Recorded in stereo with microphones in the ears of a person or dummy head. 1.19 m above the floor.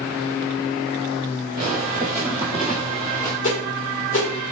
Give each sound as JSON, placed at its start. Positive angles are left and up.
{"t": 1.6, "sound": "footsteps", "side_deg": -25, "distance_m": 1.6}
{"t": 3.4, "sound": "a whoosh", "side_deg": 35, "distance_m": 1.7}